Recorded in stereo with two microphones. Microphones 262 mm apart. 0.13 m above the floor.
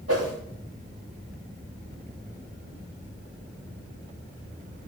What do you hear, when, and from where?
0.1 s a whoosh: 70° right (ahead or behind), 7 m